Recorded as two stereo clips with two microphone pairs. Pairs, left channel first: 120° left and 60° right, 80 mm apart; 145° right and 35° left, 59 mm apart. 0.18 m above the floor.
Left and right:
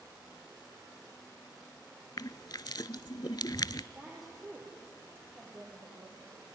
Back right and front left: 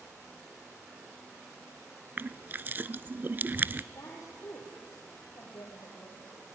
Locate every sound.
2.2 s crushing: 90° left, 0.5 m
3.9 s a woman speaking: 120° right, 4.5 m